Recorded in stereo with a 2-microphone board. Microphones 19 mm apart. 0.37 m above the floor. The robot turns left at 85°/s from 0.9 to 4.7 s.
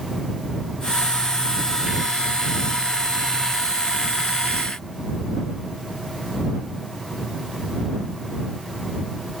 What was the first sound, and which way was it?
Only background noise.